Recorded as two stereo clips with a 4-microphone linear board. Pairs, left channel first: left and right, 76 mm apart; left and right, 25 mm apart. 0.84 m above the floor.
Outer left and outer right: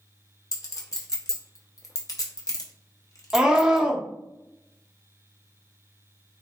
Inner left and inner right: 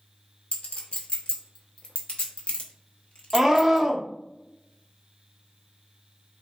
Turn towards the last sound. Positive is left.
turn(degrees=-10)  # may be behind; listen again after turning